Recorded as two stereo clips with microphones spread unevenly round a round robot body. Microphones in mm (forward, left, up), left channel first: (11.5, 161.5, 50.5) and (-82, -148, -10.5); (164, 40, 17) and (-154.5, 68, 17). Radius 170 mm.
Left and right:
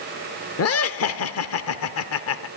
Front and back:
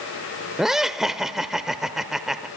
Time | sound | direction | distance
0.6 | laughter | 85° left | 0.9 m